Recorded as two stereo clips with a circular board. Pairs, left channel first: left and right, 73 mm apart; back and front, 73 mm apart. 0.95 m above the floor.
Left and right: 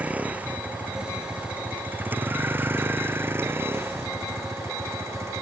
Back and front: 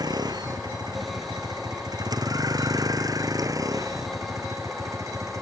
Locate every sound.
0.0 s a vehicle: 20° right; by 5.4 s 40° right